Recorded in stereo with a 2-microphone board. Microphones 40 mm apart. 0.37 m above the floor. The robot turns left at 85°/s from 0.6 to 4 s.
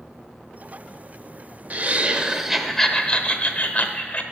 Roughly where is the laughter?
Right.